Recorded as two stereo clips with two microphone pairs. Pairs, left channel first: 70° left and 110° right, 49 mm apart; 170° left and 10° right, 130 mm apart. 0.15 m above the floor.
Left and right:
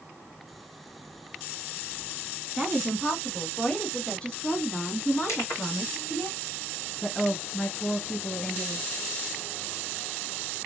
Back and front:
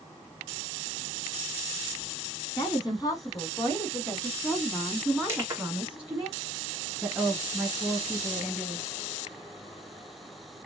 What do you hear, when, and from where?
2.6 s a woman speaking: 165° left, 1.9 m; by 6.3 s 65° left, 2 m
5.3 s crushing: 60° left, 2.5 m
7.0 s a woman speaking: 60° left, 1.2 m